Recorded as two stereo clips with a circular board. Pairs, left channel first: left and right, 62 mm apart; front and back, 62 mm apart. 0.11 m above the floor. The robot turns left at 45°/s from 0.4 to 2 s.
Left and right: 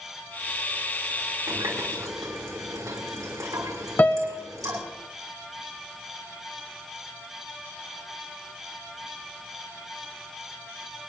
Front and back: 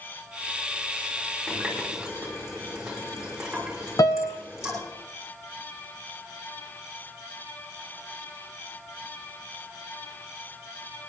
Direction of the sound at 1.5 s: 75° right.